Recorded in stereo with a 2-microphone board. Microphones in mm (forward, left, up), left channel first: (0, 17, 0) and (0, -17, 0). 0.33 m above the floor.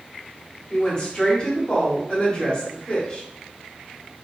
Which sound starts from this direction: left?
A woman speaking, at 0.7 s.